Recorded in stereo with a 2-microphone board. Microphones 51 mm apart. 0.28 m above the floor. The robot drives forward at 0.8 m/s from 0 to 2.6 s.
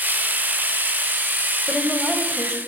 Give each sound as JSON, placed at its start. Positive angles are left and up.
{"t": 1.7, "sound": "a woman speaking", "side_deg": 20, "distance_m": 1.0}